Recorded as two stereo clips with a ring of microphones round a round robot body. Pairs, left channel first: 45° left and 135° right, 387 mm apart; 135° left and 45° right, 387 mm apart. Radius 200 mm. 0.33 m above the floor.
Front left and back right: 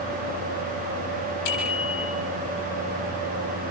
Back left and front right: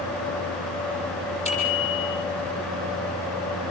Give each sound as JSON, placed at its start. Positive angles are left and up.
{"t": 1.4, "sound": "a bicycle bell", "azimuth_deg": 60, "distance_m": 9.0}